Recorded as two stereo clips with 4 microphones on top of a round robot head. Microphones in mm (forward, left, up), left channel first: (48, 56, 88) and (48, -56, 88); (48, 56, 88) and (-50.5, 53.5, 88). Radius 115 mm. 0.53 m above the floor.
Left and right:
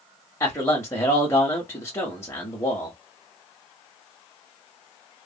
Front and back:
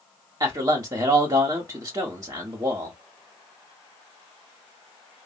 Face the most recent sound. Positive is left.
turn(degrees=145)